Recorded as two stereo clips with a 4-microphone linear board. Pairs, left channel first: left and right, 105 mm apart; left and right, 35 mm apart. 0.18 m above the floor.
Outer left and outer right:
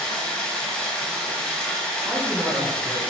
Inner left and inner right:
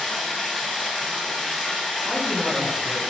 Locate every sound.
0.0 s running water: 10° left (ahead or behind), 0.8 m
2.0 s a man speaking: 10° right (ahead or behind), 1.1 m